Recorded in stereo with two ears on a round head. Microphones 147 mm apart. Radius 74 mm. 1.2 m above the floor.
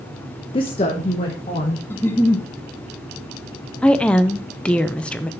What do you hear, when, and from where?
0.5 s a woman speaking: 30° left (ahead or behind), 0.7 m; by 1.8 s 40° left (ahead or behind), 1.8 m
1.9 s a giggle: 15° left (ahead or behind), 0.9 m
3.8 s a woman speaking: 5° left (ahead or behind), 0.5 m